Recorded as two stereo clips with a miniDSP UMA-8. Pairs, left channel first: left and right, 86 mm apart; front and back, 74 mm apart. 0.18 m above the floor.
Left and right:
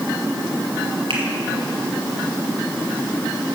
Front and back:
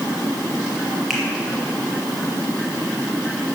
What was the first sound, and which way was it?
A finger snap, 90° right.